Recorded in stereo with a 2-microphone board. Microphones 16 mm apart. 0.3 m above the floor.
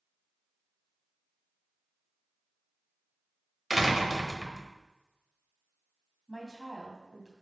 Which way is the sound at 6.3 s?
30° left (ahead or behind).